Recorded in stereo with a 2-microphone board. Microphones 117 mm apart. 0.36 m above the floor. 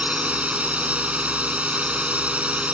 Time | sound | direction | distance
0.0 | a drone | 10° right (ahead or behind) | ?